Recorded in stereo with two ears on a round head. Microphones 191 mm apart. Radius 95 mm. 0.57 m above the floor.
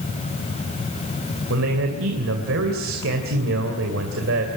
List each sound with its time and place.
1.5 s a man speaking: 70° right (ahead or behind), 3 m